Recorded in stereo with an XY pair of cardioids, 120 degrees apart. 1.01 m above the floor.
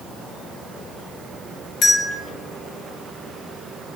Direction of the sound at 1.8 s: 55° left.